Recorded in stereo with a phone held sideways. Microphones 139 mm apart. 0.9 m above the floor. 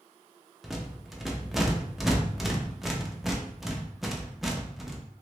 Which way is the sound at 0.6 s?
Centre (ahead or behind).